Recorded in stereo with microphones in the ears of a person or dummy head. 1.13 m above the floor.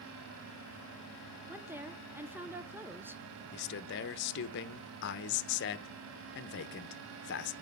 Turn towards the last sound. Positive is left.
turn(degrees=60)  # may be behind; listen again after turning